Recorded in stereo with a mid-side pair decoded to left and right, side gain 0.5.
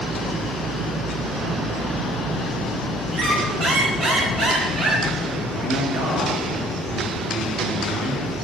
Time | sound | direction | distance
3.1 | a squeak | 50° right | 3.5 m
5.5 | a man speaking | 55° right | 3.5 m